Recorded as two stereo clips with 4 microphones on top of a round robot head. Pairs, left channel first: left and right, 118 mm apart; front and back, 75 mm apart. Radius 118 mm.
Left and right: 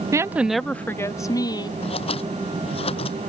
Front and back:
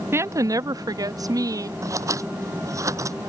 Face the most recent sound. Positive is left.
turn(degrees=135)